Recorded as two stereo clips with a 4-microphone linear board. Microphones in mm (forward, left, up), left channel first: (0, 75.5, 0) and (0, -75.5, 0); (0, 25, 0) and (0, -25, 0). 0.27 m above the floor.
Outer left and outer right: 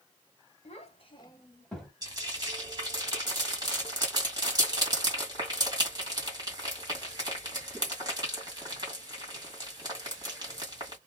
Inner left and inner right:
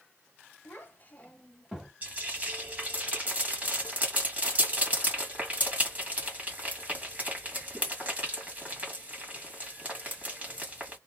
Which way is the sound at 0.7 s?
45° left (ahead or behind).